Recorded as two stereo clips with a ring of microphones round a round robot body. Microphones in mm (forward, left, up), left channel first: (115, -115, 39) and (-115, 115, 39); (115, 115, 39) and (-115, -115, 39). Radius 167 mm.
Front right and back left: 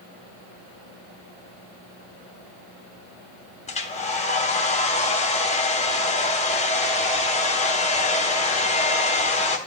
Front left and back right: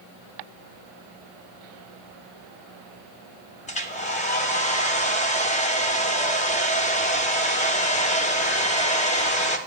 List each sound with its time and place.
3.7 s a hair dryer: straight ahead, 0.9 m